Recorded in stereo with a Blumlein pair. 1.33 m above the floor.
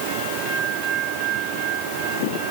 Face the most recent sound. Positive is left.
No sound to turn to.